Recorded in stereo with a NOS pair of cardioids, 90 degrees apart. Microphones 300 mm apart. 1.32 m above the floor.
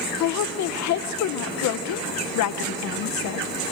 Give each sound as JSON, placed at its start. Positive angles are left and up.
{"t": 0.2, "sound": "a woman speaking", "azimuth_deg": 65, "distance_m": 1.0}